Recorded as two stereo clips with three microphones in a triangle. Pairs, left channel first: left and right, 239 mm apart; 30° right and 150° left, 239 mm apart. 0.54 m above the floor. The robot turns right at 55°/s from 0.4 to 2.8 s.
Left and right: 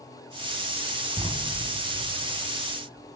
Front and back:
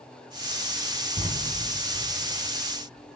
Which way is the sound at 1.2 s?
160° right.